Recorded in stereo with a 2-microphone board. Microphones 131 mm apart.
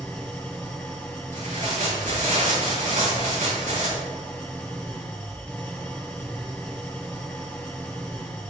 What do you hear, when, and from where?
0.0 s an engine running: 10° left (ahead or behind), 3 m
1.3 s tearing paper: 80° right, 6 m